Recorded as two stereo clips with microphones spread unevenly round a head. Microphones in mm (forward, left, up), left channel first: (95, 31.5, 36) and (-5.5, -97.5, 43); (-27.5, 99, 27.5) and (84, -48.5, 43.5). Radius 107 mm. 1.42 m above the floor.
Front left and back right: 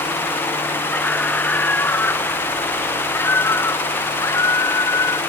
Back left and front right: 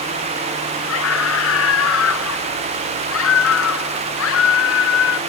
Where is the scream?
135° left; by 5.2 s 130° left.